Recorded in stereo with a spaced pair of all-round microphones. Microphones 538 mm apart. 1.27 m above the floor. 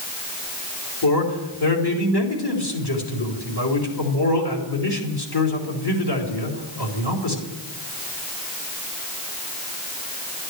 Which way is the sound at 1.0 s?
45° left (ahead or behind).